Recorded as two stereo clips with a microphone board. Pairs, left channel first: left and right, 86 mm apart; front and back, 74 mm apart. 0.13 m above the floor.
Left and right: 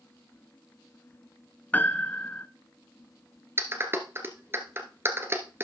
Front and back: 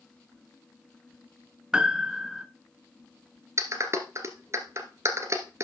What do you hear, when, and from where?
1.7 s a piano: 125° left, 0.7 m
3.6 s a clap: 145° right, 1.4 m